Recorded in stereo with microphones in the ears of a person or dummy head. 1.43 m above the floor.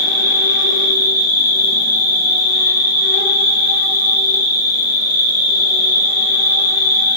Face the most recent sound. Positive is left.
turn(degrees=50)  # may be behind; listen again after turning